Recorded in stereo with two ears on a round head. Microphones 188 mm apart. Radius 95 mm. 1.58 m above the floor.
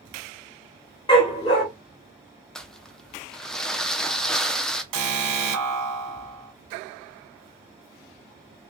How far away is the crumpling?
About 0.5 m.